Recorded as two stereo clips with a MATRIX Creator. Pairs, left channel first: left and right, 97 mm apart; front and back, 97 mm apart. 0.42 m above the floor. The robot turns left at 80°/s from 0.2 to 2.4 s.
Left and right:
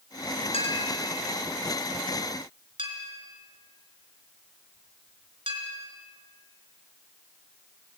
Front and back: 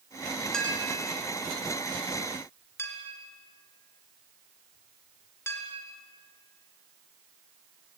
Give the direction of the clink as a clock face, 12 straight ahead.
9 o'clock.